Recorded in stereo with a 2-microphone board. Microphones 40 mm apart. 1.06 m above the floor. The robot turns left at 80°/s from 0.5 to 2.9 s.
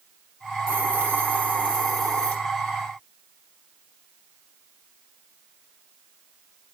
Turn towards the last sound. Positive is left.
turn(degrees=100)